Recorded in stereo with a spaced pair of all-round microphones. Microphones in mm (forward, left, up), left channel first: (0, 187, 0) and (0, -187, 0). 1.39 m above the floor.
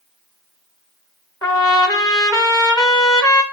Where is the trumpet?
10° left (ahead or behind), 1.3 m.